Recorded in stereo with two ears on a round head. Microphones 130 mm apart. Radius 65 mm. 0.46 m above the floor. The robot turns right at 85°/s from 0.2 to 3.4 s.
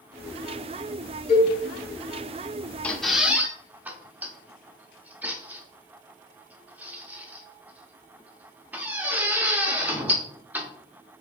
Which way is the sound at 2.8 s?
10° left (ahead or behind).